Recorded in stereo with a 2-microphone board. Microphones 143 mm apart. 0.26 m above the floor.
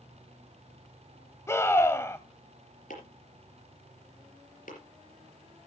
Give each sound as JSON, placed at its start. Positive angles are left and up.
{"t": 1.5, "sound": "a scream", "side_deg": 20, "distance_m": 1.1}
{"t": 2.9, "sound": "chopping", "side_deg": 75, "distance_m": 4.5}